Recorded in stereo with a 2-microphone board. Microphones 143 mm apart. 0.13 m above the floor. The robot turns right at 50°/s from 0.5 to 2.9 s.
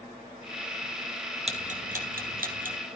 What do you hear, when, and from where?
1.5 s ticking: 45° right (ahead or behind), 2 m; by 2.8 s 60° right (ahead or behind), 2 m